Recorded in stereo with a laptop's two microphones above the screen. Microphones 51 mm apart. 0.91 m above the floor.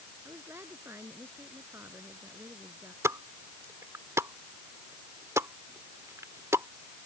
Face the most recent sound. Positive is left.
turn(degrees=-80)